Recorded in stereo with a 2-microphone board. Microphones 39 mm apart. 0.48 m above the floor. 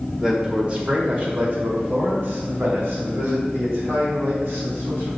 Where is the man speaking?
20° right (ahead or behind), 1.5 m; by 5.1 s 75° right (ahead or behind), 4 m.